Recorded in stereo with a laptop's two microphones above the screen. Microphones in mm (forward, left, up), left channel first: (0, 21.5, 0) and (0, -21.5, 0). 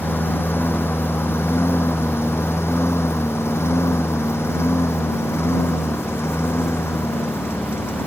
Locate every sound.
0.0 s a lawn mower: 60° left (ahead or behind); by 8.1 s 70° left (ahead or behind)